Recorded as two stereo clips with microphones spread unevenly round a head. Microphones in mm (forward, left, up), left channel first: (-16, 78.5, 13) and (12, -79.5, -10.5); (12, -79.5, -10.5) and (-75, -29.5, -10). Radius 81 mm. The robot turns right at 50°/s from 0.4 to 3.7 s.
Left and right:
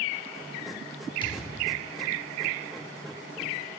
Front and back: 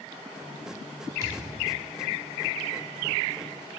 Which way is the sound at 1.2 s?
120° left.